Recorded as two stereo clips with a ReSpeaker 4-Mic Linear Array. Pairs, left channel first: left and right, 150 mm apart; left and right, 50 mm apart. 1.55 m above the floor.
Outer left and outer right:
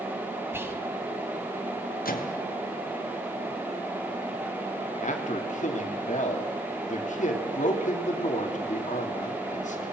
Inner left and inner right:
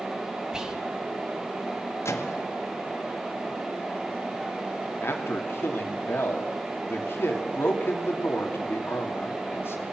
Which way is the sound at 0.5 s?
15° right (ahead or behind).